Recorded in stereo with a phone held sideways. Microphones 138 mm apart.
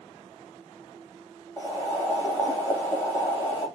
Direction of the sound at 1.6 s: 20° left (ahead or behind).